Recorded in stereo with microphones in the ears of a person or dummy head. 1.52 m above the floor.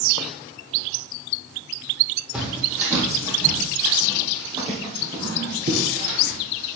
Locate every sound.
2.3 s footsteps: 5° right (ahead or behind), 3.5 m; by 6.8 s 50° right (ahead or behind), 3.5 m